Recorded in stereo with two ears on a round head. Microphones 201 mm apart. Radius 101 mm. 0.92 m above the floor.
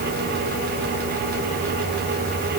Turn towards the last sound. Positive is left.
No sound to turn to.